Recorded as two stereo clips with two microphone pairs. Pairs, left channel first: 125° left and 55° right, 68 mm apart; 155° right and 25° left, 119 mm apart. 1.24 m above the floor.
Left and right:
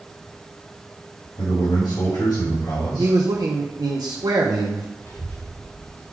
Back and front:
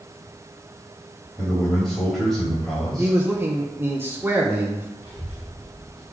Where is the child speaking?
165° left, 3 m.